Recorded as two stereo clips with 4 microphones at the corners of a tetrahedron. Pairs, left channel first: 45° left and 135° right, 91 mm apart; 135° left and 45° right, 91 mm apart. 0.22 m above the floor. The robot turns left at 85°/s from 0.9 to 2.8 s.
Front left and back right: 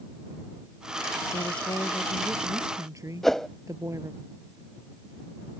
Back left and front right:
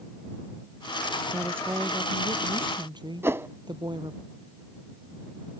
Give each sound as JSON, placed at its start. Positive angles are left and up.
{"t": 1.3, "sound": "a woman speaking", "azimuth_deg": 45}
{"t": 3.2, "sound": "a whoosh", "azimuth_deg": -35}